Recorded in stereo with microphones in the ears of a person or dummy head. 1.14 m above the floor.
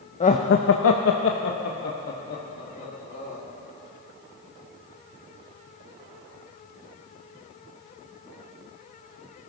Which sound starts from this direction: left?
Laughter, at 0.2 s.